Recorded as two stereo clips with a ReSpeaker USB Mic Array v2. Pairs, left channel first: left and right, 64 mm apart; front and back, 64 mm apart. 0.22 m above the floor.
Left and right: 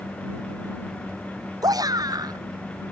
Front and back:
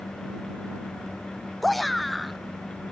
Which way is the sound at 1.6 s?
90° right.